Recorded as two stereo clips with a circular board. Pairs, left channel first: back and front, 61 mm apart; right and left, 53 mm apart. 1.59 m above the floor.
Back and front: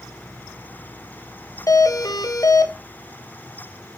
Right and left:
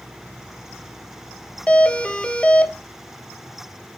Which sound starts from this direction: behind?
A doorbell, at 1.7 s.